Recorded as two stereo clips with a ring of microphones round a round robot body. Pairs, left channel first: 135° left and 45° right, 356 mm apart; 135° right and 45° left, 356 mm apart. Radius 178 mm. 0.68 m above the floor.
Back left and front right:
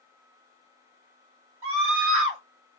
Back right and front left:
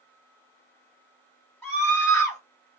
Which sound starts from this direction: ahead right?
A scream, at 1.6 s.